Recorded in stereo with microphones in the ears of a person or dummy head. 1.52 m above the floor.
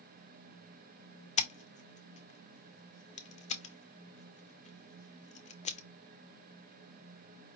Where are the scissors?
35° left (ahead or behind), 0.7 m.